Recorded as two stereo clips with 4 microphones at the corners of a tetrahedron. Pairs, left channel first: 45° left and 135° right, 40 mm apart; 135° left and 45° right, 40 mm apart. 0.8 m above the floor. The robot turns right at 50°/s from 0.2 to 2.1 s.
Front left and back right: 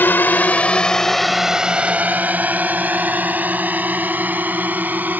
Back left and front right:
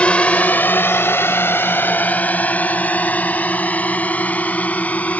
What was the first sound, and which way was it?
A drone, 75° left.